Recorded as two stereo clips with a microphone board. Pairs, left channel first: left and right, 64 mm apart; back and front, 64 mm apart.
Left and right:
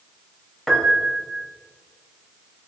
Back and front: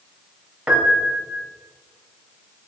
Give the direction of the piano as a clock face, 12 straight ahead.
11 o'clock.